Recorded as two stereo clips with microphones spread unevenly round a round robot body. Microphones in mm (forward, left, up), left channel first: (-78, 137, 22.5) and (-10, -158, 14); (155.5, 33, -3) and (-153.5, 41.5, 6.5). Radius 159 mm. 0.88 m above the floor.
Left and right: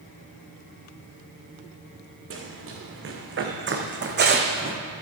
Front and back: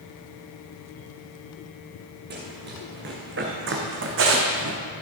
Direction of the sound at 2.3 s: 125° right.